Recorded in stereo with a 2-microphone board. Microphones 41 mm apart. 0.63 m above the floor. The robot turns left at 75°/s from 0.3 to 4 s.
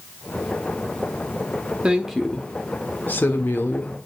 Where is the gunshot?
I don't hear a gunshot.